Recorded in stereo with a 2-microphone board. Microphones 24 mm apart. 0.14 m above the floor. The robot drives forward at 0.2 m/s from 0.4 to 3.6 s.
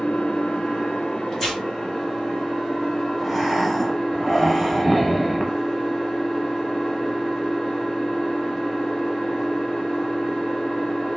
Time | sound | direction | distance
0.0 | an engine running | 60° left (ahead or behind) | 0.8 m
1.3 | tearing paper | 20° left (ahead or behind) | 2 m
3.2 | breathing | centre (ahead or behind) | 0.6 m